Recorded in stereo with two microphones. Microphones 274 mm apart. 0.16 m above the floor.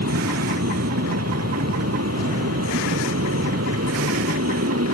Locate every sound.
0.0 s an aircraft: 65° right (ahead or behind)